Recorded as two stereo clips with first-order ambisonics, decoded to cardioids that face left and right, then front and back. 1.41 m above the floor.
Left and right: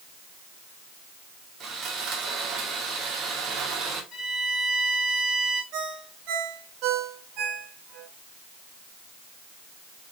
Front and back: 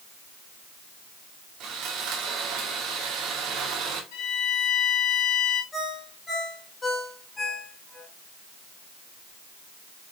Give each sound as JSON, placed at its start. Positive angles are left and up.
{"t": 1.6, "sound": "sawing", "azimuth_deg": -140, "distance_m": 1.6}
{"t": 4.1, "sound": "a violin", "azimuth_deg": 20, "distance_m": 2.5}
{"t": 5.7, "sound": "a ringtone", "azimuth_deg": -75, "distance_m": 1.8}